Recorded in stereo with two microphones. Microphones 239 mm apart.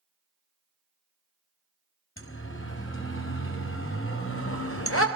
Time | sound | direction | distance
2.2 | a siren | 55° left (ahead or behind) | 5 m